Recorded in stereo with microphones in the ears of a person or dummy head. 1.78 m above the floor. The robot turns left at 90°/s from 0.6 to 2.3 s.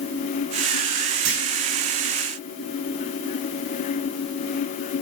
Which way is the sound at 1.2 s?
70° right (ahead or behind).